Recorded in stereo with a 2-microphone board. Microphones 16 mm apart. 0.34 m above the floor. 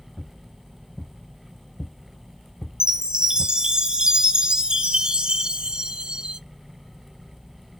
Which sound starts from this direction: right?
A chime, at 2.8 s.